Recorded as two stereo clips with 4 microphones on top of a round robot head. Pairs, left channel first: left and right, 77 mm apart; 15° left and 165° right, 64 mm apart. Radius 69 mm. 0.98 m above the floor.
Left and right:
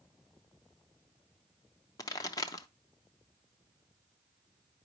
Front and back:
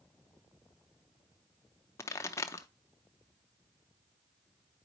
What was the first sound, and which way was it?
A pop, 55° left.